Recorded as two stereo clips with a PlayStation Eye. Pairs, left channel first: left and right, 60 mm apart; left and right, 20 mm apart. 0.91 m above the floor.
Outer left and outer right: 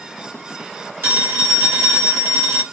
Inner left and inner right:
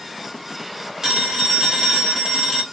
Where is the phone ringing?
40° right (ahead or behind), 1.6 m.